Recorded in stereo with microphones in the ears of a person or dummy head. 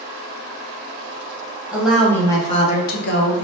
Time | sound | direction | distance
1.7 | a woman speaking | 10° right (ahead or behind) | 0.8 m